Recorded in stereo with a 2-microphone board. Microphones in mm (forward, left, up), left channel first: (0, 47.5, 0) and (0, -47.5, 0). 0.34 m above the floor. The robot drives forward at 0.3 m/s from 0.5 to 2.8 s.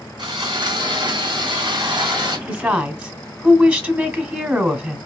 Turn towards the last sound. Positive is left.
turn(degrees=-20)  # may be behind; listen again after turning